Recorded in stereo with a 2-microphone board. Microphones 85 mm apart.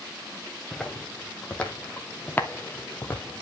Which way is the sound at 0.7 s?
10° left (ahead or behind).